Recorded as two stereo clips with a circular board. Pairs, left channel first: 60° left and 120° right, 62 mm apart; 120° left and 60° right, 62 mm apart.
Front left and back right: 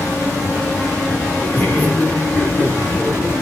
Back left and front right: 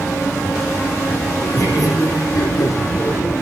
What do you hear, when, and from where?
1.4 s laughter: 120° left, 7 m; by 3.3 s 145° left, 7 m